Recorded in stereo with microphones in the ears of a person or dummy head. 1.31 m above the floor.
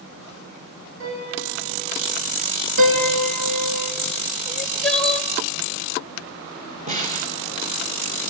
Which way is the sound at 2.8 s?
65° right (ahead or behind).